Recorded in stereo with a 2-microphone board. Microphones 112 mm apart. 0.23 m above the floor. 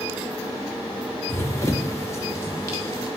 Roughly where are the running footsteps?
Left.